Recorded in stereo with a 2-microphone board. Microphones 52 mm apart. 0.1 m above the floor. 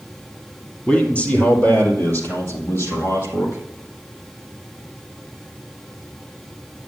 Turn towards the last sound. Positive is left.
turn(degrees=70)  # may be behind; listen again after turning